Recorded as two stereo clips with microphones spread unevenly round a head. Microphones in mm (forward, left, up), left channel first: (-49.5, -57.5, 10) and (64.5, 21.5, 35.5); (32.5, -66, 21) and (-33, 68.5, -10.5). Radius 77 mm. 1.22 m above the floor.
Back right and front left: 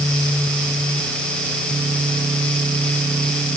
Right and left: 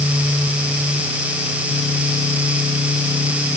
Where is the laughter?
No laughter in this recording.